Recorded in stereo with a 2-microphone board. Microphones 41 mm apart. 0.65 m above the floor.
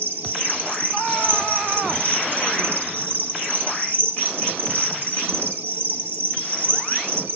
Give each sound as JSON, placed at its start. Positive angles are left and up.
{"t": 0.0, "sound": "an insect", "side_deg": -55, "distance_m": 1.0}